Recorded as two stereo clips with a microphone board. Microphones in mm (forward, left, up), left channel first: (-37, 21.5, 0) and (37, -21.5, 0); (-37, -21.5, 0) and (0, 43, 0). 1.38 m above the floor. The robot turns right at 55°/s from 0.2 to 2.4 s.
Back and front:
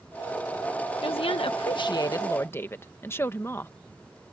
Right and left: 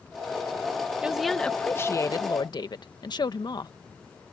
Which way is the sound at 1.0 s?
135° left.